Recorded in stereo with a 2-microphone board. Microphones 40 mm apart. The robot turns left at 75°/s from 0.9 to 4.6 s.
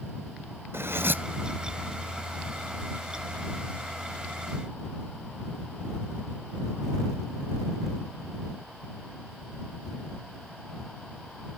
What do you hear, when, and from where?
0.7 s cutlery clinking: 75° right (ahead or behind); by 1.2 s 50° right (ahead or behind)